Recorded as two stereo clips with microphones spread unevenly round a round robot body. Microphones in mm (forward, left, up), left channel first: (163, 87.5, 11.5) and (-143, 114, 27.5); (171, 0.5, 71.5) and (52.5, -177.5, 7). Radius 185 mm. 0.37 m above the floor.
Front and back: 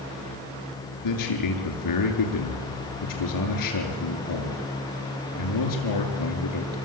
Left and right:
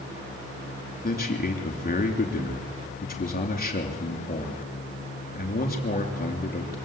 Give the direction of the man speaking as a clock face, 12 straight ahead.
12 o'clock.